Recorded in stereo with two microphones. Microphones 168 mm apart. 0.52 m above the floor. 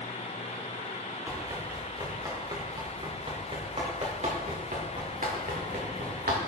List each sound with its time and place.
1.3 s running footsteps: 15° right (ahead or behind), 4 m; by 6.4 s 65° right (ahead or behind), 3.5 m